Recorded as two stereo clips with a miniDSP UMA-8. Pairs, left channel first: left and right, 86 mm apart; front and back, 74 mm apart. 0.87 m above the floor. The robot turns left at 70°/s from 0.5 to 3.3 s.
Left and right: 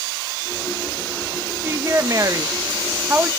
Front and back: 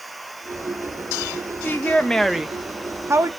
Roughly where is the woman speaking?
Ahead right.